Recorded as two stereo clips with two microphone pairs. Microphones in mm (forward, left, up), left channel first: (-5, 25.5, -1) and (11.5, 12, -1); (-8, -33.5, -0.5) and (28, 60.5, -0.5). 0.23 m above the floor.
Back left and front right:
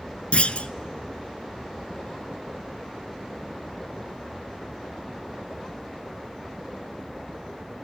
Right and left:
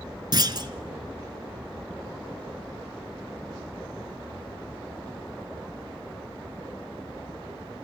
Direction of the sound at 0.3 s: 110° left.